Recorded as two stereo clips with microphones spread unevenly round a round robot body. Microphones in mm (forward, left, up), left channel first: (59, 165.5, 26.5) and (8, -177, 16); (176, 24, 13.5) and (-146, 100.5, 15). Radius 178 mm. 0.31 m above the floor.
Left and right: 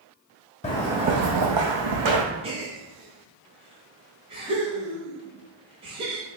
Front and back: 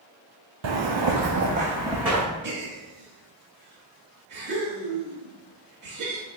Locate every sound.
0.6 s footsteps: 150° left, 0.8 m; by 2.2 s 105° right, 1.6 m
2.4 s a gasp: 160° right, 0.9 m